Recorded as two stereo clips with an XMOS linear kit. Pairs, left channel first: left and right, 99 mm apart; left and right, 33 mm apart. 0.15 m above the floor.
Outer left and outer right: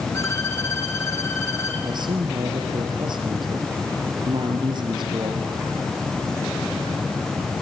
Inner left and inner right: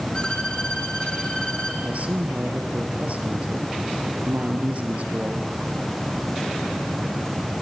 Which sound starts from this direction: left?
A violin, at 0.1 s.